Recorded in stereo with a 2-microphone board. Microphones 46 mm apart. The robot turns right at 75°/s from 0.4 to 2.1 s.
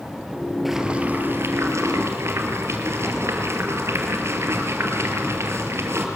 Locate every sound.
0.7 s boiling: straight behind, 2.5 m; by 6.1 s 70° right, 2.5 m